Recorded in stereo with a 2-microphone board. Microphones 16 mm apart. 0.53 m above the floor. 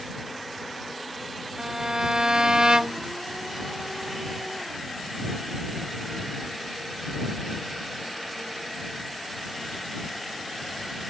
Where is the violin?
55° right (ahead or behind).